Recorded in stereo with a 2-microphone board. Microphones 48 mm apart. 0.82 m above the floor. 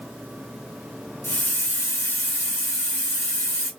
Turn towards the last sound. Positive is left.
turn(degrees=65)  # may be behind; listen again after turning